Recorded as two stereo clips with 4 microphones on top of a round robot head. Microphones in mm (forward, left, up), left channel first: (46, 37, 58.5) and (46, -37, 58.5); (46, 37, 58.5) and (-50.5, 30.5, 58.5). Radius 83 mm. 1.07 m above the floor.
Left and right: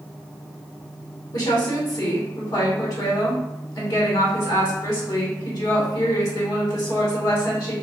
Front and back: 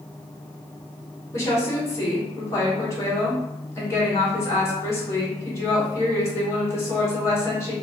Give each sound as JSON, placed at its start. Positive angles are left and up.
{"t": 1.3, "sound": "a woman speaking", "azimuth_deg": 65, "distance_m": 2.0}